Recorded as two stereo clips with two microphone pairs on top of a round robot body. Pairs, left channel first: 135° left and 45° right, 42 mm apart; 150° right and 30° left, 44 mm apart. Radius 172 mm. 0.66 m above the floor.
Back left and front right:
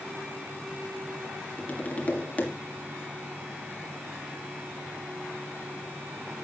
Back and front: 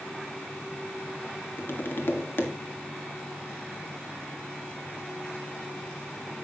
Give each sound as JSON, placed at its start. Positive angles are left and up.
{"t": 1.6, "sound": "tapping", "azimuth_deg": -165, "distance_m": 2.5}